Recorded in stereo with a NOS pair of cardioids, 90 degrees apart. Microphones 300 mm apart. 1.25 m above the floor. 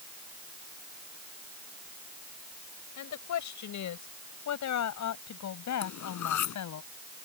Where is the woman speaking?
70° left; by 6.8 s 65° left.